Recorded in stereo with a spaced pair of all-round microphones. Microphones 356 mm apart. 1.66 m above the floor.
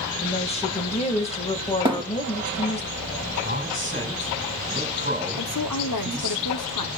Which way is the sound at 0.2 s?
15° left (ahead or behind).